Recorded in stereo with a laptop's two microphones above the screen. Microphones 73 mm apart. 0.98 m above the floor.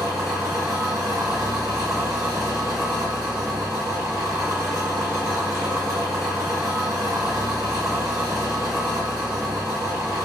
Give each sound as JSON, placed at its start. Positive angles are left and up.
{"t": 0.0, "sound": "an engine running", "side_deg": -50, "distance_m": 1.5}